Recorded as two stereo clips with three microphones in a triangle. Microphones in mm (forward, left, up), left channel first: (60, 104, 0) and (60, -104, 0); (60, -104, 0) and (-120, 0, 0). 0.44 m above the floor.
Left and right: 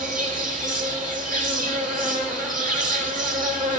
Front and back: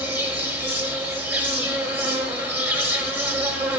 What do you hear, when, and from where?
0.0 s an insect: 130° right, 1.0 m